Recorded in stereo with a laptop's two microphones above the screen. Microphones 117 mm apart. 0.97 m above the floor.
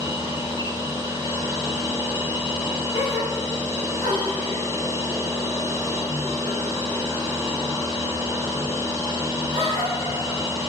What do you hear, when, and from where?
0.0 s a machine running: 25° right (ahead or behind), 0.8 m
2.9 s a gasp: 60° left (ahead or behind), 1.8 m